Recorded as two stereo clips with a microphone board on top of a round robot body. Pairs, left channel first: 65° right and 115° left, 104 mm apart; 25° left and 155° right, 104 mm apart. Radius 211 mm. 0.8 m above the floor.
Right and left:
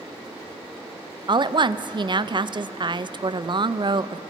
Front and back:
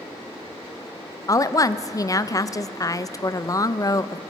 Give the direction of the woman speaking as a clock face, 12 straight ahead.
9 o'clock.